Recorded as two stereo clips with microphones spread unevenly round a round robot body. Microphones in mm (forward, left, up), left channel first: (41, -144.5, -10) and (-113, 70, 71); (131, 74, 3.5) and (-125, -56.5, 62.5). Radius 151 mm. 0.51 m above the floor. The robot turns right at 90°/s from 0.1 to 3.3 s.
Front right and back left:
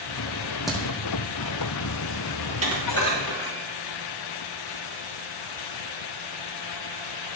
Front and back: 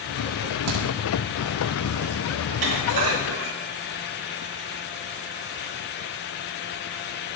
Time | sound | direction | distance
0.7 | a crack | 145° right | 6 m
2.5 | dishes clattering | 175° right | 4 m